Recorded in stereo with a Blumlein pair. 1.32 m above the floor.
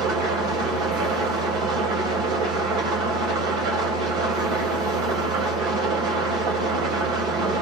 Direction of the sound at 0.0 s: 40° right.